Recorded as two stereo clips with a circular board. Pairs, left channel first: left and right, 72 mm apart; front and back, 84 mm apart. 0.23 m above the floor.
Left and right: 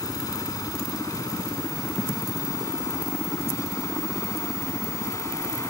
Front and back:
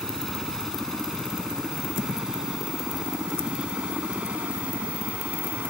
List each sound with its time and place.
0.0 s a helicopter: 85° left; by 5.7 s 115° left